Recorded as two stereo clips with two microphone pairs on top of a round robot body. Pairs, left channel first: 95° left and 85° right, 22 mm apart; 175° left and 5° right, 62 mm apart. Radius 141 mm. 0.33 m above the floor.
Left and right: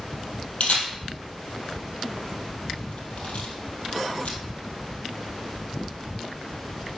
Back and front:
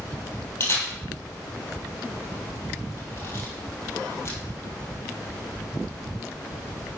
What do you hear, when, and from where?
0.6 s a camera shutter: 120° left, 2.5 m